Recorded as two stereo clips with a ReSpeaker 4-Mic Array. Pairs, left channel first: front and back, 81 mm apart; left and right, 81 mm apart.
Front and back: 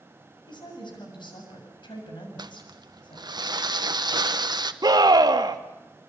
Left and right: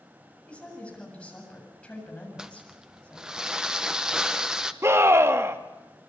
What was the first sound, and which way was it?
A woman speaking, 15° left.